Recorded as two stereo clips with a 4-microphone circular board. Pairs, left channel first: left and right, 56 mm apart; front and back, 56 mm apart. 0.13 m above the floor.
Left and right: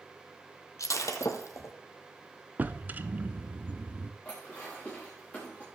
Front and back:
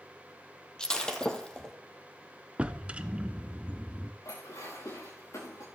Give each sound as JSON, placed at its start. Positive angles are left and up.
{"t": 0.8, "sound": "breaking glass", "azimuth_deg": 75, "distance_m": 1.9}
{"t": 2.6, "sound": "a drawer", "azimuth_deg": -125, "distance_m": 0.7}
{"t": 4.2, "sound": "dishes clattering", "azimuth_deg": 20, "distance_m": 10.0}